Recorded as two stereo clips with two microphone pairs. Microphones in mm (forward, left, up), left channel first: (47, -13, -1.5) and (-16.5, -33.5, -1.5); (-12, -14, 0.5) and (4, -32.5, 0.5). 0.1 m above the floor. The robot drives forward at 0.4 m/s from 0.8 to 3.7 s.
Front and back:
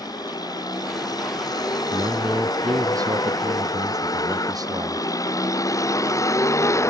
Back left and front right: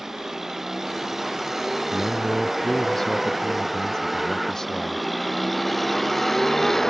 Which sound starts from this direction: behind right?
A man speaking, at 1.9 s.